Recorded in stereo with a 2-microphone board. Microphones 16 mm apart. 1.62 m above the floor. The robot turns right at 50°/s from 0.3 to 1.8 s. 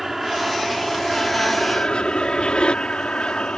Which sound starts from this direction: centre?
An aircraft, at 0.0 s.